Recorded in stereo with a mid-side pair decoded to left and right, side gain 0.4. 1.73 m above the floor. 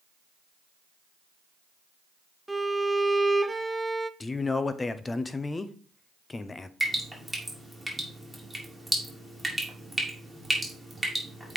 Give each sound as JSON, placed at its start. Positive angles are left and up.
{"t": 2.5, "sound": "a violin", "azimuth_deg": -10, "distance_m": 0.5}
{"t": 4.2, "sound": "a man speaking", "azimuth_deg": 30, "distance_m": 0.9}
{"t": 6.8, "sound": "dripping", "azimuth_deg": -10, "distance_m": 3.0}